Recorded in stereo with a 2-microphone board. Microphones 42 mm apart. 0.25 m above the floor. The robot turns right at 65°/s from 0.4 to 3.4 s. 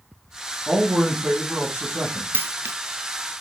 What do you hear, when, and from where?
0.7 s a man speaking: 175° left, 2 m; by 2.2 s 80° right, 2 m
2.3 s a dropped coin: 55° right (ahead or behind), 0.5 m; by 2.8 s 80° right, 0.5 m